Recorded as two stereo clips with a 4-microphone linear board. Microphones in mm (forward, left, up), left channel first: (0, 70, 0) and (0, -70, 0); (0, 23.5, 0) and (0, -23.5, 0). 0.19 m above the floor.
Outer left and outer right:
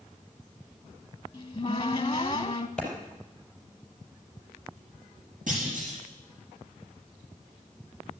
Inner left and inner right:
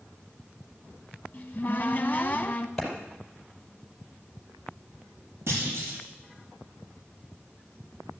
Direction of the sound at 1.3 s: 35° left (ahead or behind).